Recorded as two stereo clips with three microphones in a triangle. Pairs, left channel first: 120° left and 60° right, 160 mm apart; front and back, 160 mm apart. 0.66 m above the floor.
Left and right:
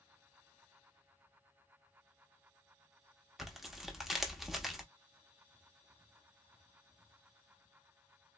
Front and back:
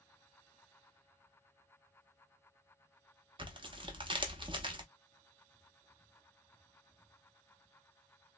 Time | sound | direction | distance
3.4 | tearing paper | 150° right | 0.6 m